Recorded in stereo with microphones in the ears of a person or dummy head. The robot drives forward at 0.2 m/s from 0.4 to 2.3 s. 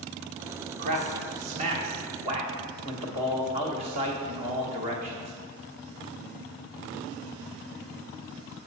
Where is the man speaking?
50° right (ahead or behind), 1.0 m; by 5.3 s 40° right (ahead or behind), 1.3 m.